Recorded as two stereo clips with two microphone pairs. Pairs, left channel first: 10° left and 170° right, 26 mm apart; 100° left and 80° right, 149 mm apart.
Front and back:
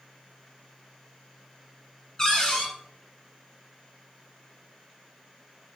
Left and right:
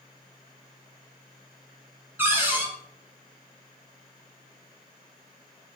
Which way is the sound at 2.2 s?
30° right.